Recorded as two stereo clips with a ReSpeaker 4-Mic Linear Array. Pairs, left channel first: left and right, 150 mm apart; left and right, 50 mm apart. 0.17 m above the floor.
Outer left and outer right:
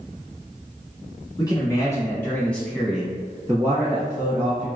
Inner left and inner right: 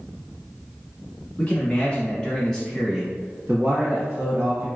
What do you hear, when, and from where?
1.4 s a man speaking: 30° left (ahead or behind), 1.3 m; by 4.7 s 35° right (ahead or behind), 1.4 m